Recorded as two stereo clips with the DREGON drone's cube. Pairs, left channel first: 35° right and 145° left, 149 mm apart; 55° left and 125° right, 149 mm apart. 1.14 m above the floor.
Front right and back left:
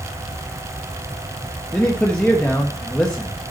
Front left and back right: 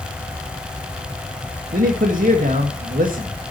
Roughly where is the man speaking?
Behind right.